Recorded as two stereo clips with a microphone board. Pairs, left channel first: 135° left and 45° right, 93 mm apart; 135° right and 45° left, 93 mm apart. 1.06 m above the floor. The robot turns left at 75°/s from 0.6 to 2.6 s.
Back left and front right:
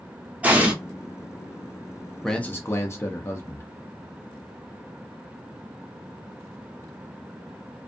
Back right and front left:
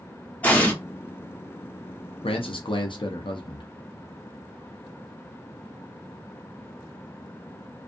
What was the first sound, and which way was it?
An explosion, 95° right.